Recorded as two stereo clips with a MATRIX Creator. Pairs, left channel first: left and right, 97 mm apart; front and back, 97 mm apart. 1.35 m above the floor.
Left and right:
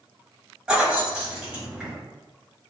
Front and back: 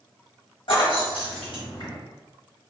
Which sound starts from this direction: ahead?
Keys jangling, at 0.7 s.